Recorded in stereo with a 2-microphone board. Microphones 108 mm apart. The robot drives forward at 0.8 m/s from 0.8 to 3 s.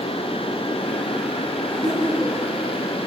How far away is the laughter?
About 6.5 m.